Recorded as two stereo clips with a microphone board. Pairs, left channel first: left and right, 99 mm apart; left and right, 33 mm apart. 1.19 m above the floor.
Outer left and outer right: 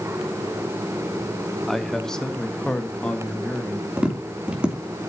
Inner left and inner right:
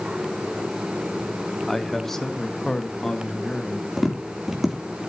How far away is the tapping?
About 3 m.